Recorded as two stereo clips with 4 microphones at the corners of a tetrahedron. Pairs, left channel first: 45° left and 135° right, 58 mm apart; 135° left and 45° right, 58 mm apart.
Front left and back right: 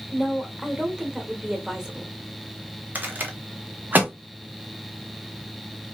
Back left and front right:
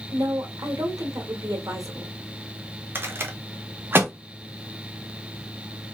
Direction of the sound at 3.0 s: 85° right.